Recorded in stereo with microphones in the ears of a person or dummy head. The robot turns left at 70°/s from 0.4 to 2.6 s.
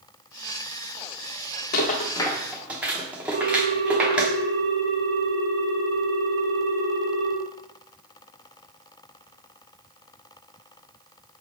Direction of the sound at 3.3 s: 70° right (ahead or behind).